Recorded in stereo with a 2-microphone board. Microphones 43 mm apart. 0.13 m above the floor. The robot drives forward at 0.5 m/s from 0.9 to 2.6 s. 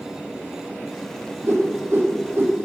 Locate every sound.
1.4 s a whoosh: 65° right (ahead or behind), 3 m; by 2.6 s 55° right (ahead or behind), 3.5 m